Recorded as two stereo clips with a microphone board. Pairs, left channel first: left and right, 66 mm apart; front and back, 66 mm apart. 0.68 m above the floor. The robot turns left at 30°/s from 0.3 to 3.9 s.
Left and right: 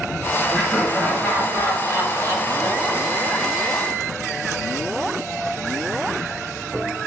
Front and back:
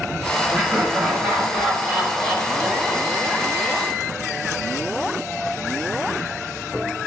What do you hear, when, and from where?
0.5 s laughter: 135° left, 1.4 m; by 3.6 s 40° left, 1.4 m